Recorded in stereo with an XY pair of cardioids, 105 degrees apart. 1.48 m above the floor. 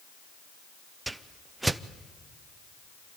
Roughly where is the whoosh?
Ahead.